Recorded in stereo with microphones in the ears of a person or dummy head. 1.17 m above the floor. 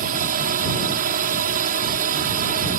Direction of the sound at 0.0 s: 45° right (ahead or behind).